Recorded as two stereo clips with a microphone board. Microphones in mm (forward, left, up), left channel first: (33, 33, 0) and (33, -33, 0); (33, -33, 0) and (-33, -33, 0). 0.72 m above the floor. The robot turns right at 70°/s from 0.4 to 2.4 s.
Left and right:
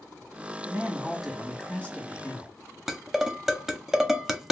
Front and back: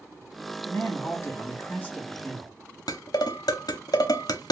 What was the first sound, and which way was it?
A man speaking, 45° right.